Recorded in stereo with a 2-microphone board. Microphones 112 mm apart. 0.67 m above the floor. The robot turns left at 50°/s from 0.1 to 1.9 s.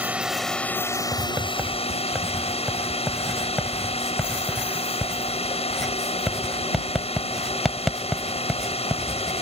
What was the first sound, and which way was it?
A drone, 165° right.